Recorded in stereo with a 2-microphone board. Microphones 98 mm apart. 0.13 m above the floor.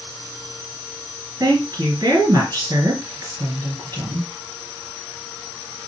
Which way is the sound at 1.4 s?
40° right (ahead or behind).